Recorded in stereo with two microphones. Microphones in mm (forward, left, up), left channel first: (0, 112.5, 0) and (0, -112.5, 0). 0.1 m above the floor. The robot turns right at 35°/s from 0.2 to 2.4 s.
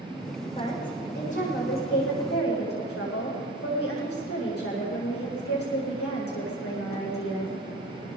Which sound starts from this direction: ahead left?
A woman speaking, at 0.6 s.